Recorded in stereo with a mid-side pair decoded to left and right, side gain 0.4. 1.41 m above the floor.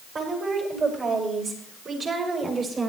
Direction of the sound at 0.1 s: 60° right.